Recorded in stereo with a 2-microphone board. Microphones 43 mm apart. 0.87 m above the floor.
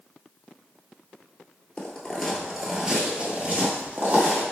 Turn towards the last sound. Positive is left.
turn(degrees=-50)  # may be behind; listen again after turning